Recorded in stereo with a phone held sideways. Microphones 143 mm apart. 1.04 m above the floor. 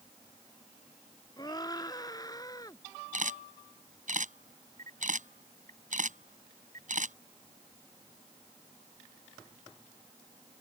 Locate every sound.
1.4 s a scream: 30° left (ahead or behind); by 2.8 s 25° left (ahead or behind)
3.1 s a camera shutter: 60° right (ahead or behind)